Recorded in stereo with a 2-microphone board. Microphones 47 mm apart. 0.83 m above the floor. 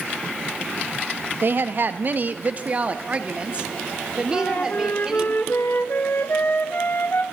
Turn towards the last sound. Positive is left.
turn(degrees=50)  # may be behind; listen again after turning